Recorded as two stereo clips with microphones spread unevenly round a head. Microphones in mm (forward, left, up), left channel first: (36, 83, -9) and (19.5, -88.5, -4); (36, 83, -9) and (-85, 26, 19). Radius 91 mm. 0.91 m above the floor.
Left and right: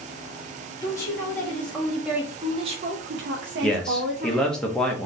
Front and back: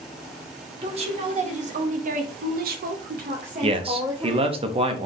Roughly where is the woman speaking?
Behind.